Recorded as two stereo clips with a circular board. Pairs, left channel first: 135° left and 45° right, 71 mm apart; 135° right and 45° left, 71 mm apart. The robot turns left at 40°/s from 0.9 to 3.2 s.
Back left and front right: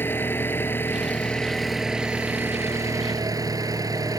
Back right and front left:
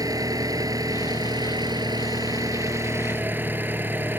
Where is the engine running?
75° left; by 4.2 s 15° right.